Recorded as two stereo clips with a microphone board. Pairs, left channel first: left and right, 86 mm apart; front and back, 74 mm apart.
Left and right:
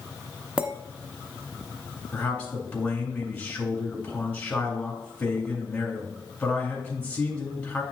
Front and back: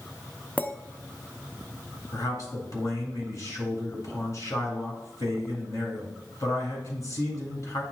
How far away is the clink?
About 0.6 m.